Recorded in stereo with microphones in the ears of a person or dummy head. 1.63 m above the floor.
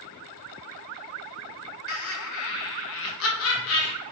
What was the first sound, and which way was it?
Laughter, 80° left.